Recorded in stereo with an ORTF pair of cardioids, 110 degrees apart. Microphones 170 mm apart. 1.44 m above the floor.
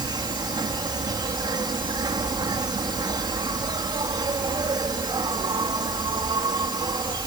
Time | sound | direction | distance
0.0 | an insect | 25° right | ?